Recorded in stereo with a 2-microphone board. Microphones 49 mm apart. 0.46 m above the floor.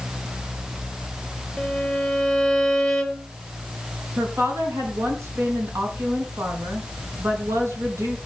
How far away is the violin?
About 1.9 m.